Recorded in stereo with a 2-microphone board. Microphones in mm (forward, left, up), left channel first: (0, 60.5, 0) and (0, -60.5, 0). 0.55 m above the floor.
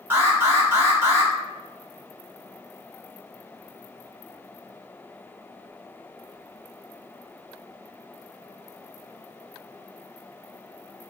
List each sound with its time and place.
0.1 s an alarm: 20° right (ahead or behind), 1.2 m